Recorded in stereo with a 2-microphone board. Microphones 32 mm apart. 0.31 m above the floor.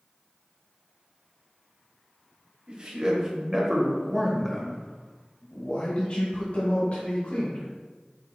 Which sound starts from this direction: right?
A man speaking, at 2.7 s.